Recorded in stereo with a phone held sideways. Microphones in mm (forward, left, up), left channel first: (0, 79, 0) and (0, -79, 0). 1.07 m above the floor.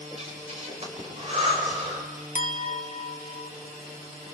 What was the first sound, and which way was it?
Breathing, 45° right (ahead or behind).